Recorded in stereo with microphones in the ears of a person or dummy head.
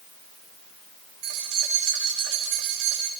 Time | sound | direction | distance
1.2 | keys jangling | 55° right (ahead or behind) | 6.5 m